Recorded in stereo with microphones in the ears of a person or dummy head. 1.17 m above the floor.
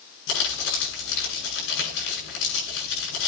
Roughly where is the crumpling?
Left.